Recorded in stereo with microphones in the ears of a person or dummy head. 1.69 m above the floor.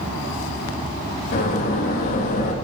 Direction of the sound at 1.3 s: 45° left (ahead or behind).